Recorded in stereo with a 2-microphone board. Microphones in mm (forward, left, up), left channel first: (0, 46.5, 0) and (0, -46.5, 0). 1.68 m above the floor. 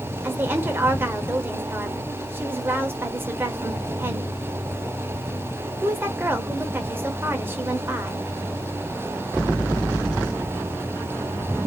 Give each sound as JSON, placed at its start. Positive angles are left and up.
{"t": 0.2, "sound": "a woman speaking", "side_deg": -20, "distance_m": 0.9}